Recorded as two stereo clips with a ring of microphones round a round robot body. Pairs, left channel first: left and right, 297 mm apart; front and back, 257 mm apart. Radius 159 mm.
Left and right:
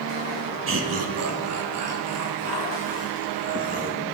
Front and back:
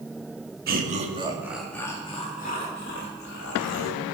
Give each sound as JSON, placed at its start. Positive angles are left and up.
{"t": 0.7, "sound": "laughter", "azimuth_deg": -130, "distance_m": 1.2}